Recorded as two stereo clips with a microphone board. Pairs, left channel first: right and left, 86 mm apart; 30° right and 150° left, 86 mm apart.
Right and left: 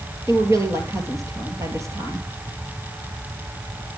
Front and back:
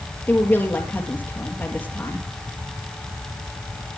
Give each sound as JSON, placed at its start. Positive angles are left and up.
{"t": 0.3, "sound": "a woman speaking", "azimuth_deg": 40, "distance_m": 3.0}